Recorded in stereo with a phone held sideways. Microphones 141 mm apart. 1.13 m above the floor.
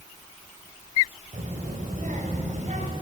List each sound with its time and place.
1.3 s a child speaking: 65° right (ahead or behind), 4.5 m; by 2.9 s 60° right (ahead or behind), 6 m